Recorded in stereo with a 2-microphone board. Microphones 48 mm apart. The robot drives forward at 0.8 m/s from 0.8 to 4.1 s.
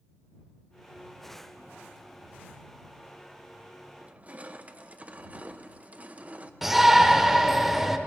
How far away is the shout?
About 0.9 m.